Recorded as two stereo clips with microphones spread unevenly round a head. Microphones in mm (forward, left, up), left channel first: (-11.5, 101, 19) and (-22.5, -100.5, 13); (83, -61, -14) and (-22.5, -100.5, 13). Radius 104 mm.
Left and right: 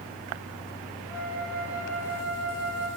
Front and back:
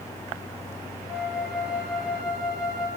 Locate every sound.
0.0 s a fan: 40° right, 3 m
1.1 s a flute: 65° right, 8 m